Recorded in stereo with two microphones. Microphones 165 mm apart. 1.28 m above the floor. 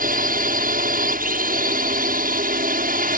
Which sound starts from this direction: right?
A drone, at 0.0 s.